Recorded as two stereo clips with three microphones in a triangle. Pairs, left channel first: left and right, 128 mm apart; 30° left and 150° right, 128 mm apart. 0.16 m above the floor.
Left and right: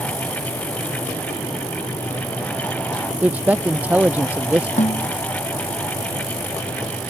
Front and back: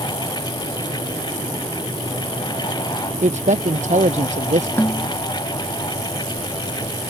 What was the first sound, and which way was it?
A man speaking, 165° right.